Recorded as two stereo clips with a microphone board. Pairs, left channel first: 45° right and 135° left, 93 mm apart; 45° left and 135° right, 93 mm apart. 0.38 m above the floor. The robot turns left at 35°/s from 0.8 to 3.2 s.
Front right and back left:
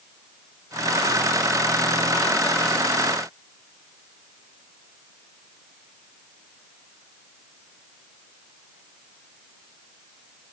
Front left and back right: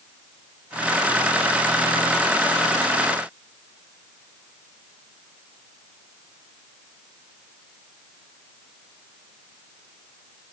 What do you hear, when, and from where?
Only background noise.